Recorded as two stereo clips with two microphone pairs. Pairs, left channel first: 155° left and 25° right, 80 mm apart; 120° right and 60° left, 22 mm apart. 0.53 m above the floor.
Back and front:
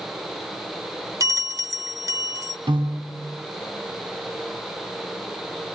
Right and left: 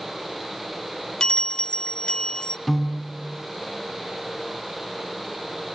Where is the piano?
35° right, 3 m.